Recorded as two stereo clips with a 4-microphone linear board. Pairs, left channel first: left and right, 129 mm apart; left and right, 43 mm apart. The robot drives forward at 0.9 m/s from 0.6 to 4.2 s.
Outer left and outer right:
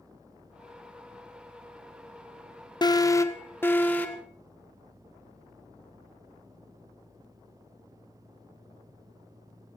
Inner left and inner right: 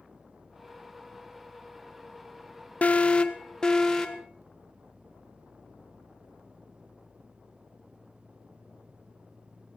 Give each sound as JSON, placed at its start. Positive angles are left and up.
{"t": 2.8, "sound": "an alarm", "side_deg": 35, "distance_m": 0.7}